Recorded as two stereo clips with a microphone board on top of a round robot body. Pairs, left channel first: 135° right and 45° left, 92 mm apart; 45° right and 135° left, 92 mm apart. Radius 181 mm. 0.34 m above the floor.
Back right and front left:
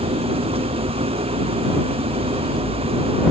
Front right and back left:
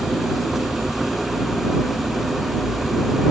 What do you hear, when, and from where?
0.0 s an engine running: 45° left